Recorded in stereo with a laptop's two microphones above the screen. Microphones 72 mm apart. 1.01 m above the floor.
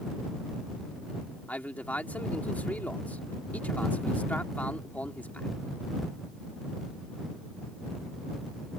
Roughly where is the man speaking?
Left.